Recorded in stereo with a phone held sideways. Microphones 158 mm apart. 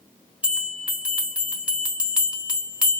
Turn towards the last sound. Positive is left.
turn(degrees=-10)  # may be behind; listen again after turning